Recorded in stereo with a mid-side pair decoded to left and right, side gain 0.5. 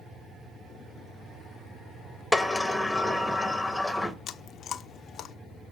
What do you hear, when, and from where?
2.3 s a sliding door: 5° left, 1.0 m
4.3 s chewing: 55° left, 0.6 m